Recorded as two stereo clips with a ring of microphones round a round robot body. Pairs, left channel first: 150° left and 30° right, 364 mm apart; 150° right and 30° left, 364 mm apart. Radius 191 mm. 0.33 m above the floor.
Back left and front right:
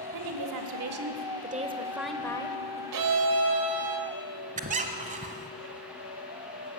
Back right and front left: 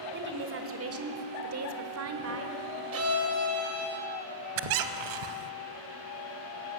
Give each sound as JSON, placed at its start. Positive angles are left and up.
{"t": 0.1, "sound": "a woman speaking", "azimuth_deg": -30, "distance_m": 1.6}
{"t": 2.9, "sound": "a violin", "azimuth_deg": -15, "distance_m": 1.6}
{"t": 4.6, "sound": "a squeak", "azimuth_deg": 40, "distance_m": 0.8}